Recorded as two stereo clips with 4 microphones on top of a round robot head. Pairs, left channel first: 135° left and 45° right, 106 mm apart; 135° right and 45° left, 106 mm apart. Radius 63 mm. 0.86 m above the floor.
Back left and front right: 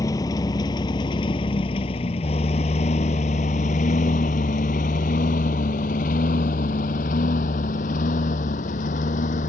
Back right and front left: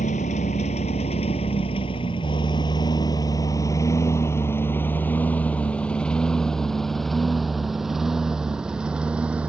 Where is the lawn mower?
160° right; by 9.5 s 125° left.